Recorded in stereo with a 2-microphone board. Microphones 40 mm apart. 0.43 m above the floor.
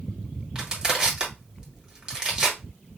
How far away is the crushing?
About 1.6 m.